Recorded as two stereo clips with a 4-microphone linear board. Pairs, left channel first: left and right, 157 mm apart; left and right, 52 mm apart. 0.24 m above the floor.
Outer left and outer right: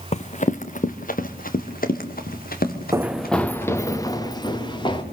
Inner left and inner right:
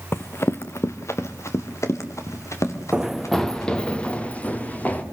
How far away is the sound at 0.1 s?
About 1.3 m.